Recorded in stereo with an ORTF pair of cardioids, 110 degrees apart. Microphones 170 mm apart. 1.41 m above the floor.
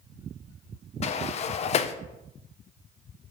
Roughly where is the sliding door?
Ahead left.